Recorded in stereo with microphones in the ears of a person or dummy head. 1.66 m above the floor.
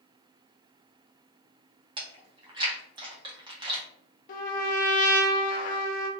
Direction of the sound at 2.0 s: 20° right (ahead or behind).